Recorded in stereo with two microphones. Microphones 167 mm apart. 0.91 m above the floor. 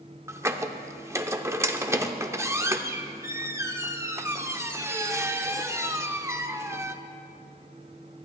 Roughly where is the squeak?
Centre.